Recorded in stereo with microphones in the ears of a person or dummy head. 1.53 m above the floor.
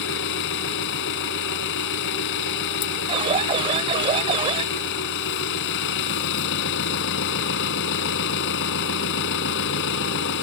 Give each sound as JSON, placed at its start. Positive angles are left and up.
{"t": 0.0, "sound": "an engine running", "side_deg": 70}
{"t": 3.1, "sound": "an alarm", "side_deg": -35}